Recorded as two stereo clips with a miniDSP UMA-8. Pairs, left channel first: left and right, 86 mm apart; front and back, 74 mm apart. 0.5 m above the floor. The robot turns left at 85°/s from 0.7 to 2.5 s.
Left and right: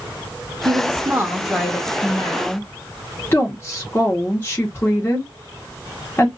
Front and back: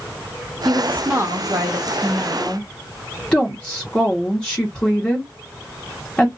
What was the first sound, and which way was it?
A woman speaking, 105° right.